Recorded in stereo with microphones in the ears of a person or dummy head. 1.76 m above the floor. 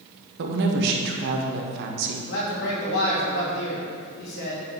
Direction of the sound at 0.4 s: 60° right (ahead or behind).